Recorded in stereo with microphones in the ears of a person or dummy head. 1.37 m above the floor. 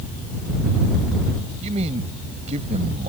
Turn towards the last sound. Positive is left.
turn(degrees=-40)  # may be behind; listen again after turning